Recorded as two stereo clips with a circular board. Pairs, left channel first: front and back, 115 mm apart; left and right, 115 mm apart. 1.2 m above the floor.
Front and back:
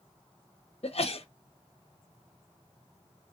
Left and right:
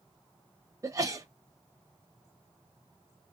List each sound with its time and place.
0.8 s a sneeze: 30° right, 0.9 m